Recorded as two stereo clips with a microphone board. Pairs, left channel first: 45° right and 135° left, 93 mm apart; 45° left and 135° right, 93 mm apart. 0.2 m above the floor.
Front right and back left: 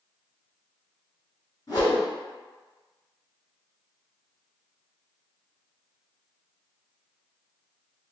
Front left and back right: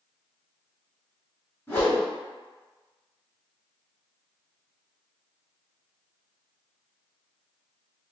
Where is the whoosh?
15° right, 2.0 m.